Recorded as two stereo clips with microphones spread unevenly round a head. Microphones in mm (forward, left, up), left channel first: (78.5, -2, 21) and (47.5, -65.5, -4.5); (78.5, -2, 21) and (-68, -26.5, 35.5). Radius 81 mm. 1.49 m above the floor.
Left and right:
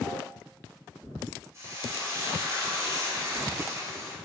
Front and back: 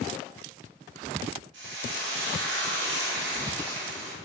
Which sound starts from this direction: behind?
Frying, at 1.5 s.